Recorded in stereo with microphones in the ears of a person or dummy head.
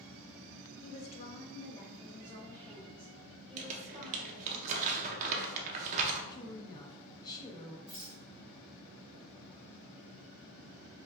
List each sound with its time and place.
0.8 s a woman speaking: 35° left (ahead or behind), 0.7 m; by 4.6 s centre (ahead or behind), 2 m
3.6 s crumpling: 40° right (ahead or behind), 0.7 m
6.3 s a woman speaking: 20° left (ahead or behind), 0.7 m
7.9 s a rattle: 35° left (ahead or behind), 1.0 m